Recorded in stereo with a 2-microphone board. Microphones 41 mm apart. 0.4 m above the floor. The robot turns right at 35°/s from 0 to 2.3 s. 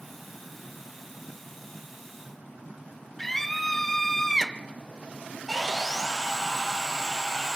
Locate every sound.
3.2 s a scream: 5° left (ahead or behind), 0.8 m
5.5 s sawing: 10° right (ahead or behind), 2 m